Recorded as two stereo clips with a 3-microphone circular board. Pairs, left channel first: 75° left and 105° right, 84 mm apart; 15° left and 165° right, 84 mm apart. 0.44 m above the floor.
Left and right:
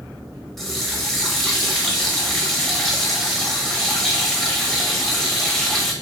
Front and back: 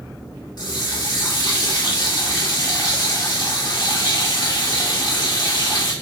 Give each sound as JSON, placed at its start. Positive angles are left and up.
{"t": 0.6, "sound": "a running tap", "azimuth_deg": -10, "distance_m": 1.2}